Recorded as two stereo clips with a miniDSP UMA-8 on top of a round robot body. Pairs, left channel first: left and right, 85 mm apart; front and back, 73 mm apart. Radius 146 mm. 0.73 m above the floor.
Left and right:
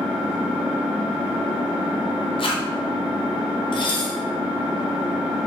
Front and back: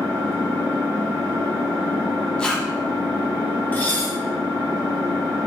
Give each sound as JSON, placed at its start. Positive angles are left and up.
{"t": 0.0, "sound": "an engine running", "azimuth_deg": -165, "distance_m": 1.7}
{"t": 2.4, "sound": "a zipper", "azimuth_deg": 80, "distance_m": 0.6}
{"t": 3.7, "sound": "dishes clattering", "azimuth_deg": 70, "distance_m": 0.8}